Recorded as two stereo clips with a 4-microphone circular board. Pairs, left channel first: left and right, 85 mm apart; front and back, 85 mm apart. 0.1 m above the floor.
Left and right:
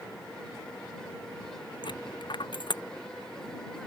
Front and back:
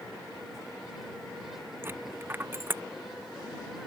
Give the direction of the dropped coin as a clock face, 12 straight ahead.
8 o'clock.